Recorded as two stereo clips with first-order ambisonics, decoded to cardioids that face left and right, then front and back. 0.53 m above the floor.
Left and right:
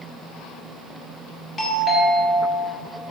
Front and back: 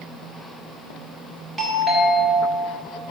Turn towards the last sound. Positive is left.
turn(degrees=105)